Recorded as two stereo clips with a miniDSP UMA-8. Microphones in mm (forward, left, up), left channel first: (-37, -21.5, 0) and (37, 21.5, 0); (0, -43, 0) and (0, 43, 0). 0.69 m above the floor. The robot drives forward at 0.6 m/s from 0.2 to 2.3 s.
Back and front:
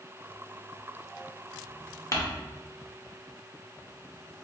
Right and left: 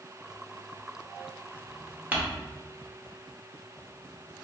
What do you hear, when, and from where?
2.1 s crumpling: 160° left, 0.8 m